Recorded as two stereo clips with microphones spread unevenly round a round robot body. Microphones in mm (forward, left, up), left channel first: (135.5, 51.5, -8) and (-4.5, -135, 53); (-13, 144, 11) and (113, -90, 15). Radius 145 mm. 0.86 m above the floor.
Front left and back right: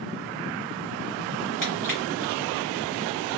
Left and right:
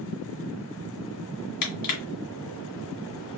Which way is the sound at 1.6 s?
145° left.